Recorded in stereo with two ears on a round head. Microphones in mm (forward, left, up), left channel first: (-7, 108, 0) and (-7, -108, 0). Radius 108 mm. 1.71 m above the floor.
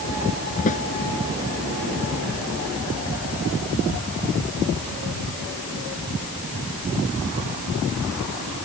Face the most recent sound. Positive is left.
turn(degrees=30)  # may be behind; listen again after turning